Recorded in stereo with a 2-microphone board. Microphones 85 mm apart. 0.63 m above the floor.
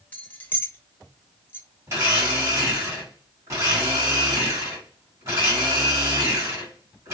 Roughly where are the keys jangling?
Centre.